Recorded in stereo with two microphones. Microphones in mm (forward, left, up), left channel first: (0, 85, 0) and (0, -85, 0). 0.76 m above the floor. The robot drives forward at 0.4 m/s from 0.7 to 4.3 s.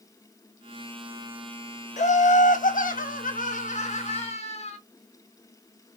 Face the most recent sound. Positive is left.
turn(degrees=40)  # may be behind; listen again after turning